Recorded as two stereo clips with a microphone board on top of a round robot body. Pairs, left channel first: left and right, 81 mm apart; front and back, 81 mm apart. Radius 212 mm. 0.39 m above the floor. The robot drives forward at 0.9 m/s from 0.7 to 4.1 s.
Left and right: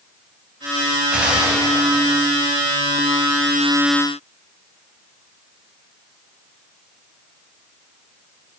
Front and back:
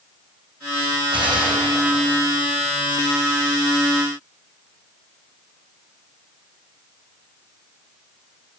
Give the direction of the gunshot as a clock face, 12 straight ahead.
6 o'clock.